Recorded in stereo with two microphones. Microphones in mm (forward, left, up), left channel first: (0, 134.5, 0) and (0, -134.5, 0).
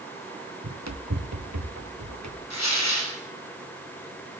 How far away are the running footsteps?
About 1.5 m.